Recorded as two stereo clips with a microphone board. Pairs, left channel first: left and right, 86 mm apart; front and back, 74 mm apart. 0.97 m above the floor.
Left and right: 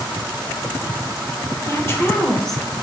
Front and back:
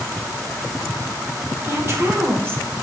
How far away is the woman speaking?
About 0.9 m.